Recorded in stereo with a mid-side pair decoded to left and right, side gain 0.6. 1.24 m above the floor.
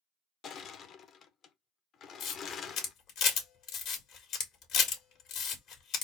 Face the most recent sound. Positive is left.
turn(degrees=60)